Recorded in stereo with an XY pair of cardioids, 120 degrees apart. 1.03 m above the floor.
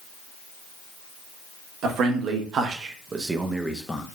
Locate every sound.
1.8 s a man speaking: 70° right, 1.1 m; by 4.0 s 15° left, 0.5 m